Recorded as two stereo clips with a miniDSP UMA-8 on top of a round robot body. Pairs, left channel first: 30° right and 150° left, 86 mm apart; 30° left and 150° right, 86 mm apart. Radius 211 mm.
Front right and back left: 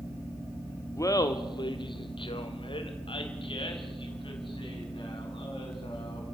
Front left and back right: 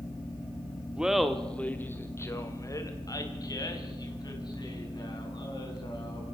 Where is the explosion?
I don't hear an explosion.